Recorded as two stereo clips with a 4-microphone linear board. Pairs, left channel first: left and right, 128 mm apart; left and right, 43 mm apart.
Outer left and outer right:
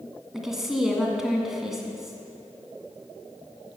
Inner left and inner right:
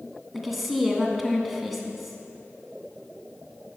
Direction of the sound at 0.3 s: 5° right (ahead or behind).